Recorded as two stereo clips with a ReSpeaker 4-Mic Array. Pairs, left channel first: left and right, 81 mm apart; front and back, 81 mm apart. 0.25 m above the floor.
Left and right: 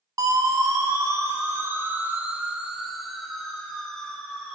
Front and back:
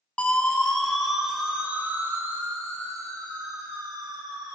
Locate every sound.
0.2 s a siren: 70° right, 2 m; by 4.5 s 165° left, 3 m